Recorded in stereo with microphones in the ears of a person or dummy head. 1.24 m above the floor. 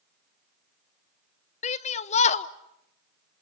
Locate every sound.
1.6 s a shout: 30° left (ahead or behind), 0.7 m